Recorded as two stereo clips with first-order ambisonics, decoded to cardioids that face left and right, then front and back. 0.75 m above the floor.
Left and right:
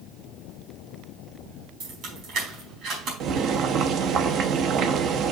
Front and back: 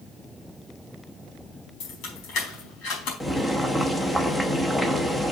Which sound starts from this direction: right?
Boiling, at 3.2 s.